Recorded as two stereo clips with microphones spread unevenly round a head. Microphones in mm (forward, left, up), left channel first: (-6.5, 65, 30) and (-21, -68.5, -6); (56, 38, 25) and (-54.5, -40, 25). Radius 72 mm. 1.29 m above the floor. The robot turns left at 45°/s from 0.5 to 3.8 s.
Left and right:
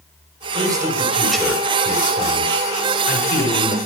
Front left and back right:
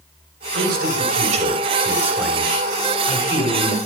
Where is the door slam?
I don't hear a door slam.